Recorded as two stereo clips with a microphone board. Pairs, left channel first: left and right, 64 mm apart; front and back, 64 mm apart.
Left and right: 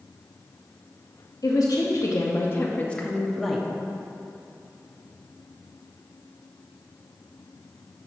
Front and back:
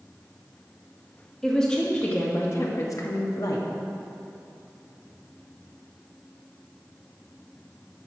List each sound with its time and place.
1.4 s a woman speaking: 80° left, 1.0 m; by 3.7 s 5° right, 1.0 m